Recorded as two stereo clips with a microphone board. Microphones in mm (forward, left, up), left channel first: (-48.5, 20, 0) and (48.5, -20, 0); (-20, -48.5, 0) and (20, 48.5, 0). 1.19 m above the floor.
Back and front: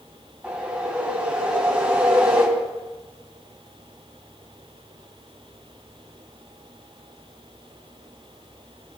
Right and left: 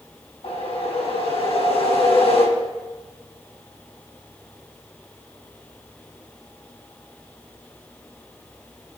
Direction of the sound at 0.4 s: 100° right.